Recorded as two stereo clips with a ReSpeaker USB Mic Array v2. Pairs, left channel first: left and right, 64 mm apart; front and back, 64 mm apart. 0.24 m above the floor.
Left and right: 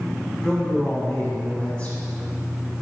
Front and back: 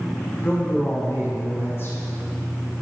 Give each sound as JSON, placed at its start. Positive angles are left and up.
{"t": 0.4, "sound": "a man speaking", "azimuth_deg": 30, "distance_m": 2.0}